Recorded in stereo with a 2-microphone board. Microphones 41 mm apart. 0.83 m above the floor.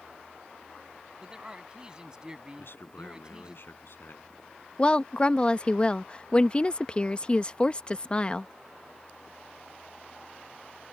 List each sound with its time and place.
1.2 s a man speaking: 20° right (ahead or behind)
2.6 s a man speaking: 60° left (ahead or behind)
4.8 s a woman speaking: 25° left (ahead or behind)